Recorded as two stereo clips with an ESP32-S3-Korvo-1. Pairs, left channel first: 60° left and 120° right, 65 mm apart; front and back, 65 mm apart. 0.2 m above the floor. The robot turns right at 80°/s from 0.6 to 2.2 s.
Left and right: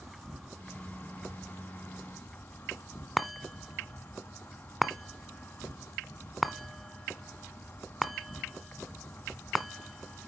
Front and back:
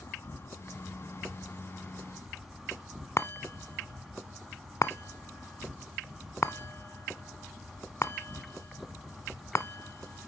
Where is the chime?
30° right, 0.5 m.